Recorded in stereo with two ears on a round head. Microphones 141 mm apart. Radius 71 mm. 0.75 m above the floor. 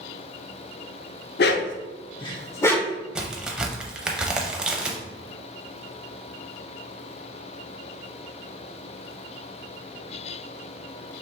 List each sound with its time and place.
1.4 s a dog barking: 70° left (ahead or behind), 0.6 m; by 3.0 s 5° left (ahead or behind), 0.9 m
3.1 s a crack: 5° right (ahead or behind), 0.6 m